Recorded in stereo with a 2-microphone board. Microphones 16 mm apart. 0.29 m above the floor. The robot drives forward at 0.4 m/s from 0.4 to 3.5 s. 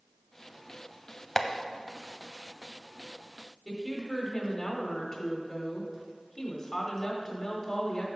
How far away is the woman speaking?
About 1.2 m.